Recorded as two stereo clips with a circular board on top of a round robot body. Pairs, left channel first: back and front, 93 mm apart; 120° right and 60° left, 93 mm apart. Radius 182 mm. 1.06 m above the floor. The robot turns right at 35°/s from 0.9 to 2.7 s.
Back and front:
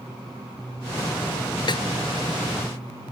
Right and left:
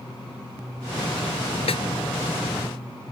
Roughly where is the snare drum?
Behind right.